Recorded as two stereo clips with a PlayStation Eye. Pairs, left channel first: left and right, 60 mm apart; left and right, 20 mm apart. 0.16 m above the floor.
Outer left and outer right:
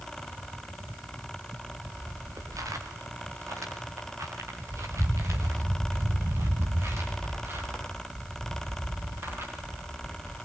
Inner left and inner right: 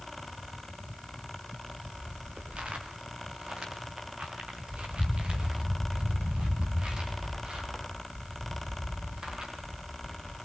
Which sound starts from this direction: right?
Footsteps, at 1.5 s.